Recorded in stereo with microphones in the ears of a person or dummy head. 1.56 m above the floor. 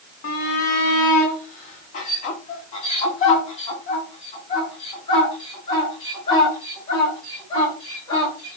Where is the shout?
50° left (ahead or behind), 2 m; by 8.6 s 20° left (ahead or behind), 6.5 m.